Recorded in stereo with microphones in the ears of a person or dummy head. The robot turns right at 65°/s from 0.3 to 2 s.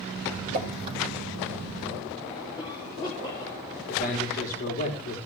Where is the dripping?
55° right (ahead or behind), 5.5 m; by 1.0 s 25° right (ahead or behind), 5.5 m.